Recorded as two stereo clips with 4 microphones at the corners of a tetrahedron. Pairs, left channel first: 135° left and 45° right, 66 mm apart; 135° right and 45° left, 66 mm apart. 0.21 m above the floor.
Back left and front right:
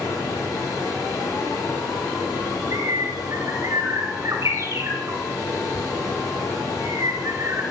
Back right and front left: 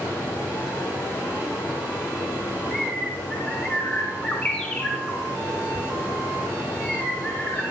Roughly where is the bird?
Right.